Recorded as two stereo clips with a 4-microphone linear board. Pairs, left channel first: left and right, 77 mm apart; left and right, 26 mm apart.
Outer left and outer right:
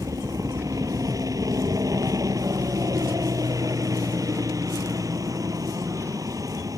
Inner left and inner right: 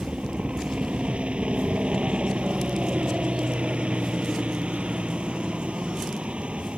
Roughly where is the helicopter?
Right.